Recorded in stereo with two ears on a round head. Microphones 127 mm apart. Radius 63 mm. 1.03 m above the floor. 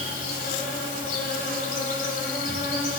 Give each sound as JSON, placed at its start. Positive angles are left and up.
{"t": 0.0, "sound": "an insect", "side_deg": 65, "distance_m": 2.5}